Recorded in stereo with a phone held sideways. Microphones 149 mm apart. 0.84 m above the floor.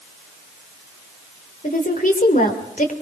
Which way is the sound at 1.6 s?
65° left (ahead or behind).